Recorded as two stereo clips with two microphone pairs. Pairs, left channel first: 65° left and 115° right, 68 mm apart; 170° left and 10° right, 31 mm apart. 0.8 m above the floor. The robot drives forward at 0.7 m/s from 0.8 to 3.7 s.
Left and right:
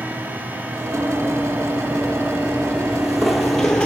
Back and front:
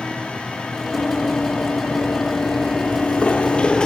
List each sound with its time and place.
0.9 s running footsteps: straight behind, 1.9 m; by 3.9 s 130° left, 0.9 m